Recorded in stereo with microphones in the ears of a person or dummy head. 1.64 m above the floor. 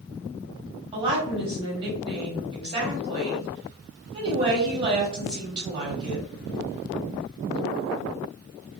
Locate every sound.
0.9 s a woman speaking: 30° right (ahead or behind), 1.5 m